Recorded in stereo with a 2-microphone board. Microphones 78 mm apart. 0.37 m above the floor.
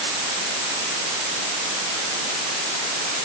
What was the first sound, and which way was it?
Only background noise.